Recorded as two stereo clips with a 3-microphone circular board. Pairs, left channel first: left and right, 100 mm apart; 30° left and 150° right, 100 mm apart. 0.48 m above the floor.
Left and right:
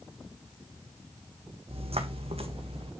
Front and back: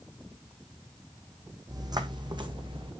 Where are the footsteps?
100° right, 1.7 m; by 2.9 s 110° right, 2.5 m.